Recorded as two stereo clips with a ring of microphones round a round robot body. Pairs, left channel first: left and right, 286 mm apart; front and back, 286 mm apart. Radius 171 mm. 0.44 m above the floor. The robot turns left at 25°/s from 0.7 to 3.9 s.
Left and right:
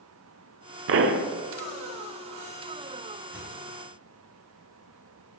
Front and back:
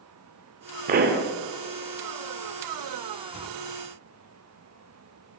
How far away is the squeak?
About 3 m.